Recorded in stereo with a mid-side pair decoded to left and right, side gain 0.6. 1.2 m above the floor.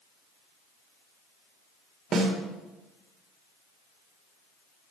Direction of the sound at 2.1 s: 40° right.